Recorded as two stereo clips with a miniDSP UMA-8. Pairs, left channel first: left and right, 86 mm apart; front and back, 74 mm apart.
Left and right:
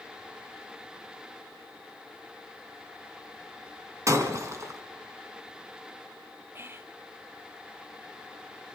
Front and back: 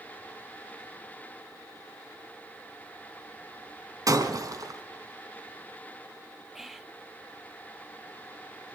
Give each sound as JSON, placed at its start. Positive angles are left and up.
{"t": 4.1, "sound": "breaking glass", "azimuth_deg": -140, "distance_m": 2.5}
{"t": 6.5, "sound": "whispering", "azimuth_deg": -100, "distance_m": 0.9}